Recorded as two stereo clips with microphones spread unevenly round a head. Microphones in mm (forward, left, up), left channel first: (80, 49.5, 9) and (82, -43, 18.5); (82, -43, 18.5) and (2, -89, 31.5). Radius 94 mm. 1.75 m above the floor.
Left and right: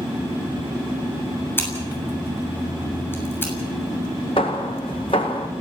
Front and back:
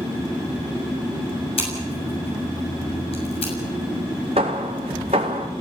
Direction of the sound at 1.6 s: 25° left.